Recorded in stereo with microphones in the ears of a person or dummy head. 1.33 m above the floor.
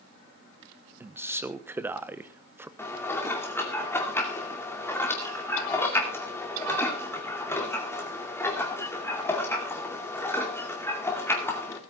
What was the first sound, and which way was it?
A man speaking, 15° right (ahead or behind).